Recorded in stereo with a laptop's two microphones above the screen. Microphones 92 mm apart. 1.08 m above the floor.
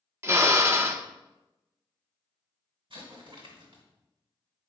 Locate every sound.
0.2 s a drill: 30° right (ahead or behind), 0.5 m
2.9 s an explosion: 65° right (ahead or behind), 2 m